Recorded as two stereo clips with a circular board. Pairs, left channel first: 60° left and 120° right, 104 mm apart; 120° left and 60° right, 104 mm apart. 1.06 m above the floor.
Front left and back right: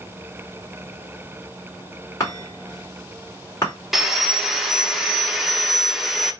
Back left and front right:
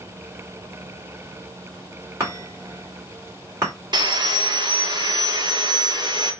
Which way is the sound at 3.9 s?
35° right.